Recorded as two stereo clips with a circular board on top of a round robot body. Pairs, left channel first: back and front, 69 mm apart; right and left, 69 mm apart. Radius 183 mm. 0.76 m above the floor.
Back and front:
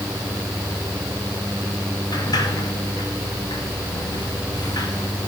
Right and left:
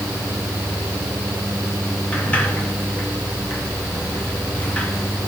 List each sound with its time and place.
2.1 s a sliding door: 160° right, 1.8 m